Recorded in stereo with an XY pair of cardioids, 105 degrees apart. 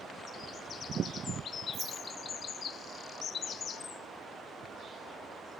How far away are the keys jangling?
About 1.7 m.